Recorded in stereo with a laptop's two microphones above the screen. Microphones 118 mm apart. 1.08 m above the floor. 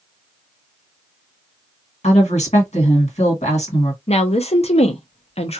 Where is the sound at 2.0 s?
70° left (ahead or behind), 1.7 m.